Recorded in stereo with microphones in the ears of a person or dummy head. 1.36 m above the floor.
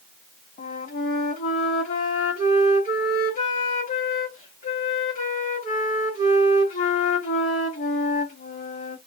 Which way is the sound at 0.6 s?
45° left (ahead or behind).